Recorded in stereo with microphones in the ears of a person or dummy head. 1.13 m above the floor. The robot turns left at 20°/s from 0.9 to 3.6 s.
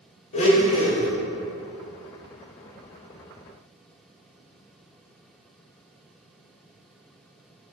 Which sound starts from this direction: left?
A blender, at 0.3 s.